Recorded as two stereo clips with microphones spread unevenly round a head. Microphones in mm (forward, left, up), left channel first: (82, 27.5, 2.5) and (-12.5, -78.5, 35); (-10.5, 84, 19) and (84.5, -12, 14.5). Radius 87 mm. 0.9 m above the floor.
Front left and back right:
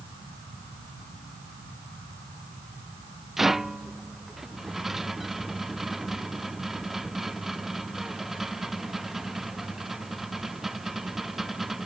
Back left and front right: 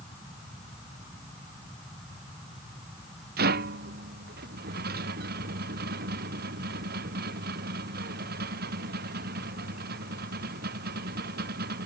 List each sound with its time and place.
3.4 s a rattle: 45° right